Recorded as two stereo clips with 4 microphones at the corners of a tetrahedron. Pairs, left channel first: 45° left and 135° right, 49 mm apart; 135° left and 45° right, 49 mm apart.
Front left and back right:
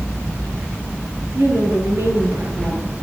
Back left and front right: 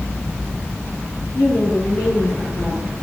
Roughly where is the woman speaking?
Behind.